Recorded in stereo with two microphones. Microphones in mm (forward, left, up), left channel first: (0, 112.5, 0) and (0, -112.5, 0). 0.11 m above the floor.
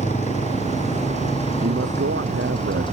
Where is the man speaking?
65° right (ahead or behind).